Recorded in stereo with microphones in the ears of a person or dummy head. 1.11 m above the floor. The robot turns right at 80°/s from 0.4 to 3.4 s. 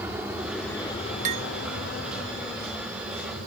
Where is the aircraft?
10° right (ahead or behind); by 3.5 s 45° right (ahead or behind).